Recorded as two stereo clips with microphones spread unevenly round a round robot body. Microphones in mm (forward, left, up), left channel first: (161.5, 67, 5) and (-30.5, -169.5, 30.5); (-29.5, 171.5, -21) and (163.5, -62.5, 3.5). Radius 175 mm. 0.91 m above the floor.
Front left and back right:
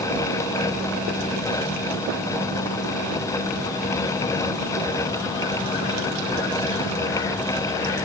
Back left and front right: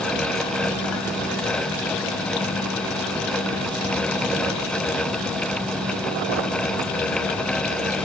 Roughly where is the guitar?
No guitar in this recording.